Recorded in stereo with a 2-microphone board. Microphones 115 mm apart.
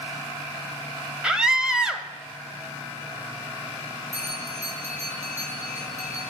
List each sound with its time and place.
1.2 s a scream: 5° right (ahead or behind), 1.0 m
4.1 s a bell: 75° right (ahead or behind), 4.5 m